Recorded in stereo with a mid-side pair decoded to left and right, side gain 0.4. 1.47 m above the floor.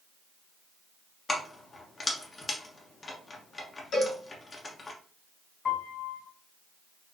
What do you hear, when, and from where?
1.3 s keys jangling: 35° left, 1.1 m
3.9 s a cowbell: 60° left, 2.5 m
5.7 s a piano: 60° left, 2.5 m